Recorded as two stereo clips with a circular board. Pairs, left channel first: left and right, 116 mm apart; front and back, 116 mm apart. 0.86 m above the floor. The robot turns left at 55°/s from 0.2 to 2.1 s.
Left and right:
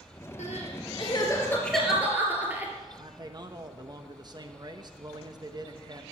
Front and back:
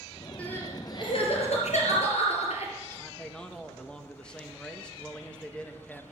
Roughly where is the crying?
Left.